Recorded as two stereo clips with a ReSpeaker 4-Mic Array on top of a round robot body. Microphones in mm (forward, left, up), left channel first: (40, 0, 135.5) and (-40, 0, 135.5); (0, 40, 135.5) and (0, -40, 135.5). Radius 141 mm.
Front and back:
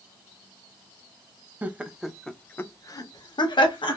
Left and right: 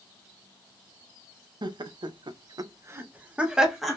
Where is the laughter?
110° right, 0.7 m; by 4.0 s straight ahead, 0.9 m.